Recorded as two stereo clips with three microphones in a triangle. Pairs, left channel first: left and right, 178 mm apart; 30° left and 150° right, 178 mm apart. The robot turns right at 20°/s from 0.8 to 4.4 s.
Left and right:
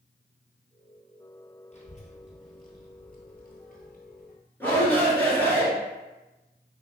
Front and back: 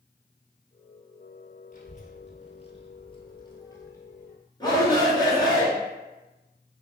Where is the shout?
30° left, 1.4 m.